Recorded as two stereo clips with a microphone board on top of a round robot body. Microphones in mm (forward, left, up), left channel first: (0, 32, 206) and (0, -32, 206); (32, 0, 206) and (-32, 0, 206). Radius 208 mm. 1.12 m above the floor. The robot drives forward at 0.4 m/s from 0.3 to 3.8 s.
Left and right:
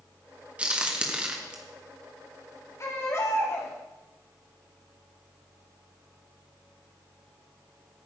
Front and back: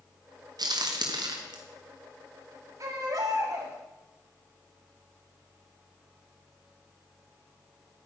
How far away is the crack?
About 1.5 m.